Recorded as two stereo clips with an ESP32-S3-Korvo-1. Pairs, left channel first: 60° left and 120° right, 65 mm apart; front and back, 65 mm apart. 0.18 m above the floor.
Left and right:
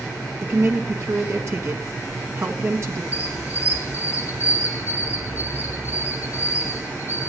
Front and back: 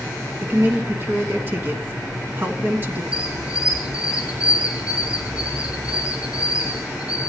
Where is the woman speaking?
135° right, 1.6 m.